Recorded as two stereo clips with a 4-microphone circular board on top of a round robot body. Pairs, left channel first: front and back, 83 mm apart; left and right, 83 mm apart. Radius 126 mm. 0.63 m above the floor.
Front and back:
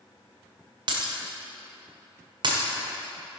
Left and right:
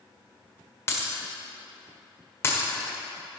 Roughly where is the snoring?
No snoring in this recording.